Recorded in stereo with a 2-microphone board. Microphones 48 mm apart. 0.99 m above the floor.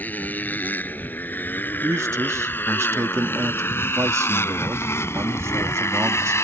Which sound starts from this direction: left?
A motorcycle, at 0.0 s.